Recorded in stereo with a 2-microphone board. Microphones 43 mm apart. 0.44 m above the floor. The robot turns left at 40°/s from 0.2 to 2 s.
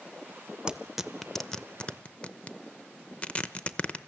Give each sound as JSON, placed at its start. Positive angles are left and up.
{"t": 0.7, "sound": "tearing paper", "side_deg": -15, "distance_m": 0.7}